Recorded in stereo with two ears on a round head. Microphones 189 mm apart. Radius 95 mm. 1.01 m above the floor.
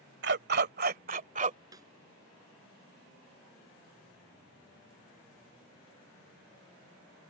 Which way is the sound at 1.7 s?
20° right (ahead or behind).